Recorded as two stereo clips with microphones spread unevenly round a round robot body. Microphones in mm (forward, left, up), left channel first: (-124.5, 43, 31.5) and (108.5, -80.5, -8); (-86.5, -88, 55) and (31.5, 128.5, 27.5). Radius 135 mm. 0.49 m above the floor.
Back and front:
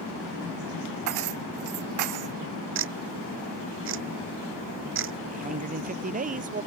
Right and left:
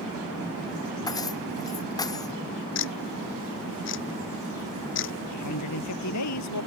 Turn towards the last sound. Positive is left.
turn(degrees=-90)